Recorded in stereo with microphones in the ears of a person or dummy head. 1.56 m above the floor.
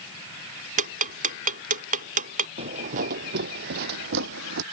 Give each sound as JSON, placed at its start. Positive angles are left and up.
{"t": 0.8, "sound": "ticking", "side_deg": -35}
{"t": 2.6, "sound": "footsteps", "side_deg": -25}